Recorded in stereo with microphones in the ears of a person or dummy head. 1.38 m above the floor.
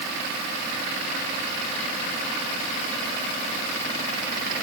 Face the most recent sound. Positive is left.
No sound to turn to.